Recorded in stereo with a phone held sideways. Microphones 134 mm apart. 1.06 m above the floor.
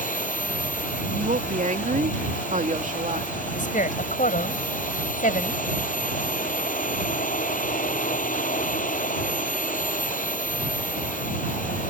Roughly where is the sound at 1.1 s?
Right.